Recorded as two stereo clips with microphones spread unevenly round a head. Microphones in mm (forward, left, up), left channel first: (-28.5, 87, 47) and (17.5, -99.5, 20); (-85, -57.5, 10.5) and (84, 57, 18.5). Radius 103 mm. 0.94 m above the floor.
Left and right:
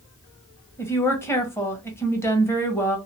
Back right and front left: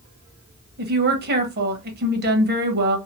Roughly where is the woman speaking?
Ahead left.